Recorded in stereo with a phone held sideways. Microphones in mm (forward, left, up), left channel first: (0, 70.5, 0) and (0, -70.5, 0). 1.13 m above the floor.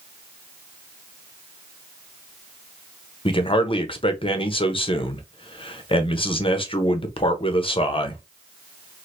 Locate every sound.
3.2 s a man speaking: 40° left (ahead or behind), 0.6 m